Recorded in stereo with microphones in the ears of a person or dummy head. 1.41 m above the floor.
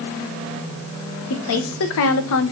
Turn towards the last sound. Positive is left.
turn(degrees=70)  # may be behind; listen again after turning